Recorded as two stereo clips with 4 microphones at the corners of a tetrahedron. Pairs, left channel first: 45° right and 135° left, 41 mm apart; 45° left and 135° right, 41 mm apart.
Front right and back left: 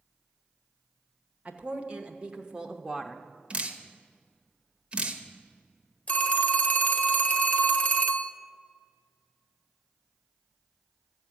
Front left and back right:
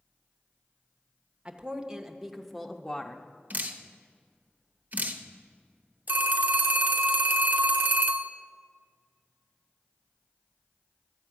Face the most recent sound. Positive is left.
turn(degrees=-100)